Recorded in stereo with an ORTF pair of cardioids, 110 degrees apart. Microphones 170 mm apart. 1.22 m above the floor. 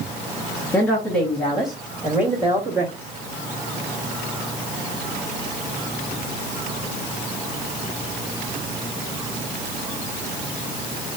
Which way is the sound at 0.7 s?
15° left.